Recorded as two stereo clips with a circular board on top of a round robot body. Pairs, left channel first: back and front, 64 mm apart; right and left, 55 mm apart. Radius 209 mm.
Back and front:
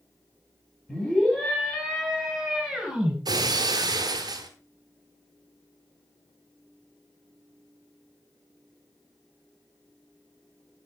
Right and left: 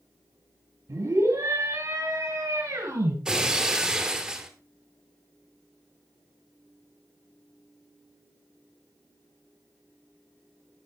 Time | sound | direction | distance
0.9 | a scream | 100° left | 4 m
3.2 | breaking glass | 15° left | 1.0 m